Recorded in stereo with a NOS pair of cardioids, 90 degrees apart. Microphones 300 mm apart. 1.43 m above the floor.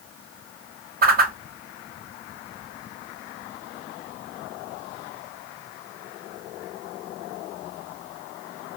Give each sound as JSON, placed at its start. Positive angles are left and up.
{"t": 1.0, "sound": "a whoosh", "azimuth_deg": -30, "distance_m": 0.9}